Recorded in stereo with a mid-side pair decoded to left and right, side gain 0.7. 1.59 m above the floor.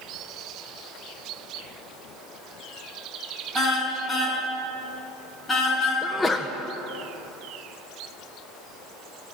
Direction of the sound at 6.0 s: 10° left.